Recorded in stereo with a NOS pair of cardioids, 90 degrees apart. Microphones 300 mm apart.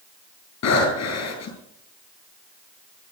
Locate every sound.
0.6 s breathing: 65° left, 8.5 m